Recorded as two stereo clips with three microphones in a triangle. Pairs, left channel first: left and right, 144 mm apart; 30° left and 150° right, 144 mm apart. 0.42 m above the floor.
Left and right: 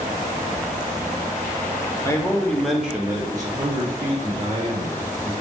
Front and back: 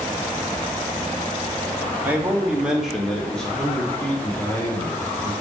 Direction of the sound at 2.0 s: 140° left.